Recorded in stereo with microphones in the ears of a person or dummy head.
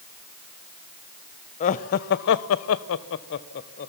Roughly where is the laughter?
Left.